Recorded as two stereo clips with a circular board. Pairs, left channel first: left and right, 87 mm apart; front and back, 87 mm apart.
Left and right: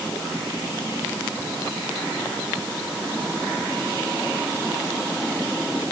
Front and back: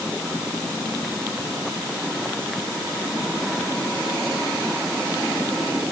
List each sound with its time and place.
Only background noise.